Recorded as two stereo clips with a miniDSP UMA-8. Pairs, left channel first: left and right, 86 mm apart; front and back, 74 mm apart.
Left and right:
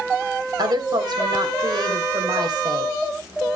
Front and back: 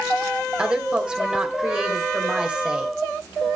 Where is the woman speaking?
105° right, 2.5 m.